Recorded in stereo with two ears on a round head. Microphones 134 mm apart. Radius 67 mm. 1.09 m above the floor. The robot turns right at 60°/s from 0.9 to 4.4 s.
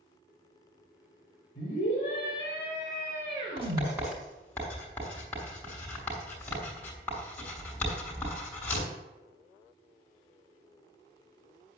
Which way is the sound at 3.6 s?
40° right (ahead or behind).